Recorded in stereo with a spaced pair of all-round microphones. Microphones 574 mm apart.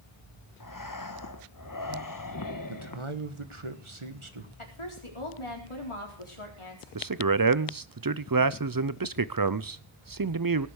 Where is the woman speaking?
55° left (ahead or behind), 4 m.